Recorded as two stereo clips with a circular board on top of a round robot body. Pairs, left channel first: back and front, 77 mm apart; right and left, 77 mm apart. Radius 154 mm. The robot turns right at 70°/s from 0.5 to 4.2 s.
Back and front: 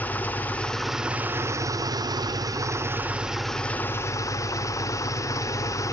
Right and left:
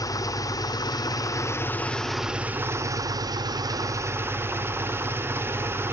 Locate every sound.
0.0 s an engine running: 115° right, 1.0 m; by 5.9 s 145° left, 1.0 m